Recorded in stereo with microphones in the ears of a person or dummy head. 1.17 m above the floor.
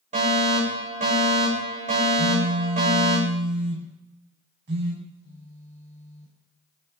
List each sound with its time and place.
0.1 s a fire alarm: 35° right (ahead or behind), 8.5 m
2.2 s a phone buzzing: 55° right (ahead or behind), 6.5 m
5.0 s a phone buzzing: 40° left (ahead or behind), 4.5 m